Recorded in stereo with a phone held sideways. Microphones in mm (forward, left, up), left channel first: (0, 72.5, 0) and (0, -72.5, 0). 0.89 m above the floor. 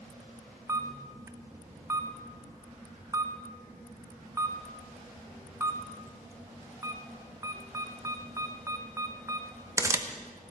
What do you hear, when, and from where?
0.7 s a camera shutter: 20° right (ahead or behind), 0.6 m